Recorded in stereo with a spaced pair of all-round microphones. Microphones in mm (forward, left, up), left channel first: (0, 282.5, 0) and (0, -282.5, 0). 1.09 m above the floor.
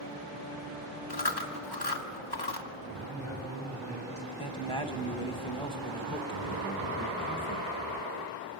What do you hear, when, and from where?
1.1 s chewing: 40° left (ahead or behind), 1.6 m
3.1 s a man speaking: 30° left (ahead or behind), 6 m
4.4 s a man speaking: 10° left (ahead or behind), 1.5 m